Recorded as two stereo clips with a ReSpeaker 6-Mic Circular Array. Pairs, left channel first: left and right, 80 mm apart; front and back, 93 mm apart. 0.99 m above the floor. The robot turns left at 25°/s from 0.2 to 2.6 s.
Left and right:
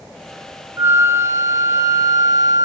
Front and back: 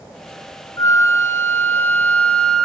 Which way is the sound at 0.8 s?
40° right.